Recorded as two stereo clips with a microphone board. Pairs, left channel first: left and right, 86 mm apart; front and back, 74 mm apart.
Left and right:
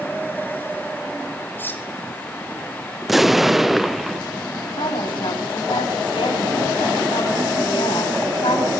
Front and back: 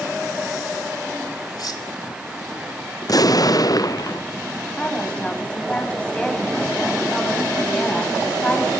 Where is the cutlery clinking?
25° left, 2.5 m.